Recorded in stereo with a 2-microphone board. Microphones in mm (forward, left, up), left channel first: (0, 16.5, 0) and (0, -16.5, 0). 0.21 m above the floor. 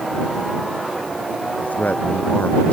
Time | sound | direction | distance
1.6 | a man speaking | 55° left (ahead or behind) | ?